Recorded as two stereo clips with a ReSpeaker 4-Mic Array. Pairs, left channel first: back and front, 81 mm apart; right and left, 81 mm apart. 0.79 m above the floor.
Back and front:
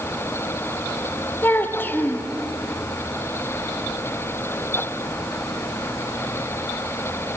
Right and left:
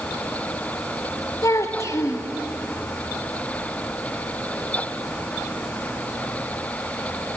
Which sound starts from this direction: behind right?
A child speaking, at 1.4 s.